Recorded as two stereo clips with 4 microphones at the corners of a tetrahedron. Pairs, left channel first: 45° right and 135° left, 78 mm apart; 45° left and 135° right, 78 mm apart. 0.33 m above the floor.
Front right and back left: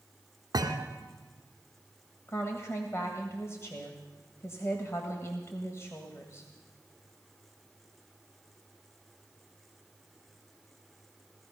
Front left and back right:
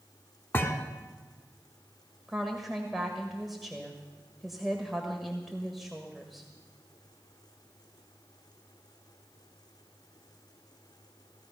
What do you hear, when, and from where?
0.5 s a thud: 105° left, 1.6 m
2.3 s a woman speaking: 50° right, 1.6 m